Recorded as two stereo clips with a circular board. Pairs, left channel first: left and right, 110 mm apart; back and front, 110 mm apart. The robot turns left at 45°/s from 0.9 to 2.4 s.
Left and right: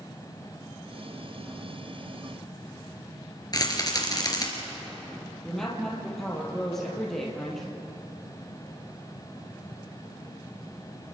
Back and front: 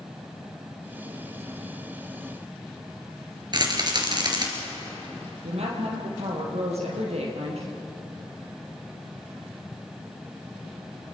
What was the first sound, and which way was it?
A rattle, 40° left.